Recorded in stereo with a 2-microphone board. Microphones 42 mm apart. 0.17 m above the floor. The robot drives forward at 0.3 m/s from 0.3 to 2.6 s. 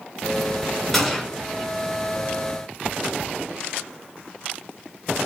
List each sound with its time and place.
0.9 s a gunshot: 5° left (ahead or behind), 1.4 m